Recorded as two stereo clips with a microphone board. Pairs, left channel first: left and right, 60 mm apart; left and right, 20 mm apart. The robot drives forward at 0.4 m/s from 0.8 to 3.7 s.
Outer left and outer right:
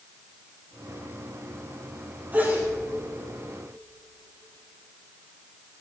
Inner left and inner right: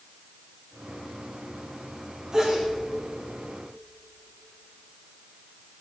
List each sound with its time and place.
2.3 s a sneeze: 35° right (ahead or behind), 4 m